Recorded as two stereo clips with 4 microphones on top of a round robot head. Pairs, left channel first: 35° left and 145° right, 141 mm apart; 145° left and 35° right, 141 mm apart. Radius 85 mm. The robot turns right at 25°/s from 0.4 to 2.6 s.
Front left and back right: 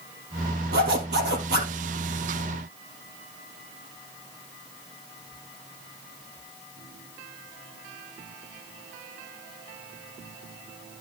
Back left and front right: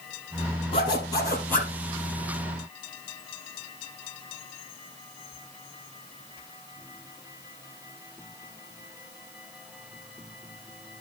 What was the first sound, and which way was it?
A zipper, 160° right.